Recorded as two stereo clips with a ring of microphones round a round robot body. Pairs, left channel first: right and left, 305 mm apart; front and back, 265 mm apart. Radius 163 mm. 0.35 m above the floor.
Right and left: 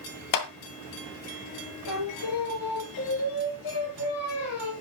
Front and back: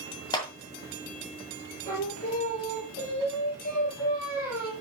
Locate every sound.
0.3 s a clap: 75° right, 1.9 m
1.9 s singing: 65° right, 8 m